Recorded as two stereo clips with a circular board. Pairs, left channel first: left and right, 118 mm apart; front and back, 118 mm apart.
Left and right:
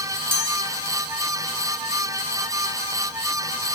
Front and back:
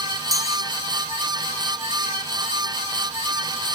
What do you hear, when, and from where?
0.3 s a chime: 120° right, 2.5 m